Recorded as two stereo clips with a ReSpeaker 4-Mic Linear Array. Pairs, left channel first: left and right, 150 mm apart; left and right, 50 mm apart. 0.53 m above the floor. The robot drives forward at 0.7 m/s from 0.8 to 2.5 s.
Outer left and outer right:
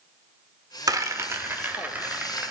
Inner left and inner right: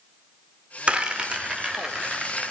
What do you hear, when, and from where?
0.9 s a rattle: 25° right (ahead or behind), 0.6 m; by 2.5 s 10° right (ahead or behind), 1.7 m